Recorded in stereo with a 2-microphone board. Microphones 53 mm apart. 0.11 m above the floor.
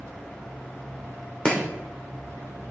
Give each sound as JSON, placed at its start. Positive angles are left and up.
{"t": 1.4, "sound": "chopping", "side_deg": 10, "distance_m": 2.0}